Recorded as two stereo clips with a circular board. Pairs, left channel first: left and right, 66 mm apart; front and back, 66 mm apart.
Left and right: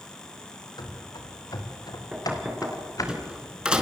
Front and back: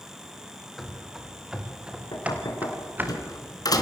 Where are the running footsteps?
90° left, 4.5 m; by 3.1 s 120° left, 4 m.